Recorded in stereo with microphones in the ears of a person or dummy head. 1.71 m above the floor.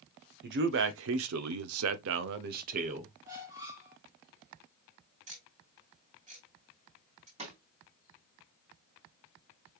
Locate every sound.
0.4 s a man speaking: 55° right (ahead or behind), 1.1 m; by 3.1 s 35° right (ahead or behind), 1.0 m
3.2 s a squeak: 20° right (ahead or behind), 1.9 m
5.3 s ticking: 35° right (ahead or behind), 3.5 m
7.4 s a snare drum: 35° right (ahead or behind), 3.5 m